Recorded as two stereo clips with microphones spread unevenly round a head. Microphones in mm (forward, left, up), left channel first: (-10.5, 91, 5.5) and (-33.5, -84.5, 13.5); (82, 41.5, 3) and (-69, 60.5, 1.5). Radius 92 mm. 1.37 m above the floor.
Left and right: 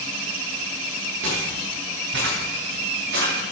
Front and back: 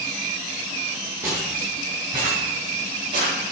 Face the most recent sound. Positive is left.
turn(degrees=-125)